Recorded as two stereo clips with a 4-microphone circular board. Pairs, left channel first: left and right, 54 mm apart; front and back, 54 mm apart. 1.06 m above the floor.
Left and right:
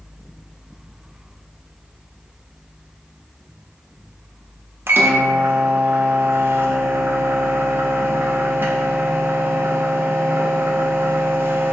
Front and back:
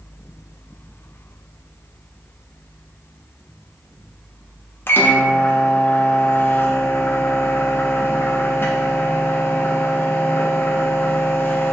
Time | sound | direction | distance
4.9 | a microwave | 45° right | 0.5 m